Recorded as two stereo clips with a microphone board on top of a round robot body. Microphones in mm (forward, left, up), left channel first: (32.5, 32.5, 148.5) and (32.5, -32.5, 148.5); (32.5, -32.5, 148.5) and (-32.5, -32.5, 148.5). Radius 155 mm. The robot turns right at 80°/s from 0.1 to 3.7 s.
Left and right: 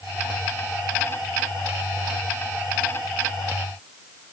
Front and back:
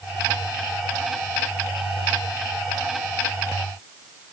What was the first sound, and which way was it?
Only background noise.